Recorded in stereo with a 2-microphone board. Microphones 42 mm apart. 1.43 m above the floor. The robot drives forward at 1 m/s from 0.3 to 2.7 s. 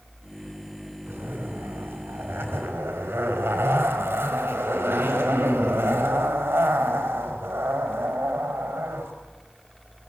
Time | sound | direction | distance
1.1 | a zipper | 60° right (ahead or behind) | 5 m